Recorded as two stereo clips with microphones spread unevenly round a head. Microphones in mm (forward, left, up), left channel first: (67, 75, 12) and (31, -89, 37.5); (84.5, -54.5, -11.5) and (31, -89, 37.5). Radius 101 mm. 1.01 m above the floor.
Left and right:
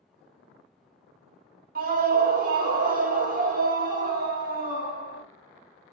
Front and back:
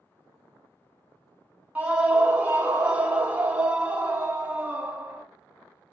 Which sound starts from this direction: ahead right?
A scream, at 1.8 s.